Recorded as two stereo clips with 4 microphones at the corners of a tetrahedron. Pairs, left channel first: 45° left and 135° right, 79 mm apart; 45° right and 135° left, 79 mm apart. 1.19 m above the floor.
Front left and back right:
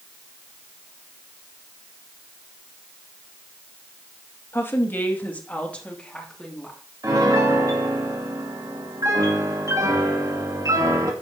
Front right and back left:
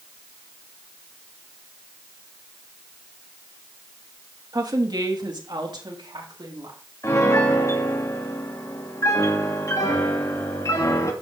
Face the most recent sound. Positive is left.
turn(degrees=-95)